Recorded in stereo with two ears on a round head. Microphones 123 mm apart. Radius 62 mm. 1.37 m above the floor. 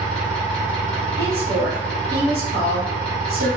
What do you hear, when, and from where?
0.0 s an engine running: 10° left (ahead or behind), 0.9 m
1.2 s a woman speaking: 80° right, 1.3 m